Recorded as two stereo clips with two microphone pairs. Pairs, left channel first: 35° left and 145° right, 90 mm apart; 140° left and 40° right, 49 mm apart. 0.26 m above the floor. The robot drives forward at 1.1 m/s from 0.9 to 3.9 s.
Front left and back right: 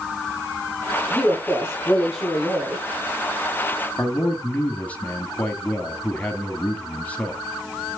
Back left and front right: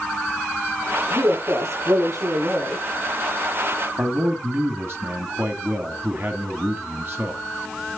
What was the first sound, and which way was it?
A woman speaking, 50° right.